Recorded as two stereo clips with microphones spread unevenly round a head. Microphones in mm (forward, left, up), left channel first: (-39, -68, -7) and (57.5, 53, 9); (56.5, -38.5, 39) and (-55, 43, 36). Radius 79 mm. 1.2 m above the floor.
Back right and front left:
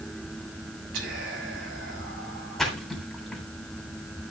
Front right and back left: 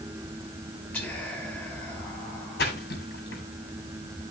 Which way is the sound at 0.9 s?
40° left.